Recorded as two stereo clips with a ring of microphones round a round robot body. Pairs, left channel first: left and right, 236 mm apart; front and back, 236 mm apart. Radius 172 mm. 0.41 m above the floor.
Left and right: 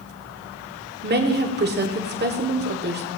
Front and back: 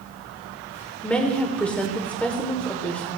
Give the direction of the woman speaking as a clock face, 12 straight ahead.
3 o'clock.